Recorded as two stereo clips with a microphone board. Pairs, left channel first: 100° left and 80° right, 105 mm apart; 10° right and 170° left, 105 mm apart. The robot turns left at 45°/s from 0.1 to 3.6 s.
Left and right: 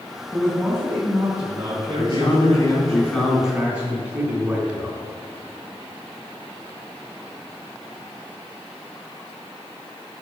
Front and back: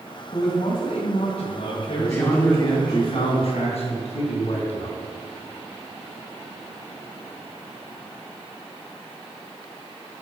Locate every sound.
0.3 s a man speaking: 20° left, 2.5 m; by 3.0 s 100° right, 2.5 m
2.0 s a man speaking: 75° left, 3.5 m; by 5.0 s straight ahead, 3.5 m